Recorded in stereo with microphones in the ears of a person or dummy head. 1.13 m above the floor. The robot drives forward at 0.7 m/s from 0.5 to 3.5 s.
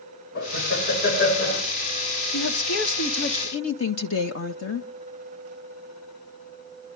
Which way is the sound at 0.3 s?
50° left (ahead or behind).